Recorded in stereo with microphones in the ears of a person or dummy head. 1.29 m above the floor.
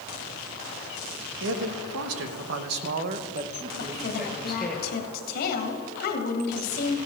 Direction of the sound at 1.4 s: 85° right.